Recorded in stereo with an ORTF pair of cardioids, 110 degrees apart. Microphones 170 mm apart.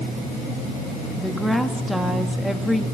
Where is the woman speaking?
Straight ahead, 2 m.